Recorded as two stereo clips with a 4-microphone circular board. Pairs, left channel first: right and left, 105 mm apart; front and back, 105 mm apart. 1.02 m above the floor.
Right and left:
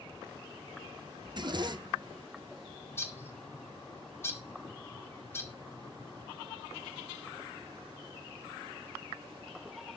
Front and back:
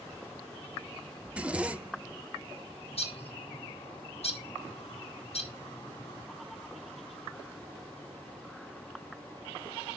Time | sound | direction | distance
1.2 | a zipper | 105° left | 0.7 m
2.9 | a bird | 20° right | 1.9 m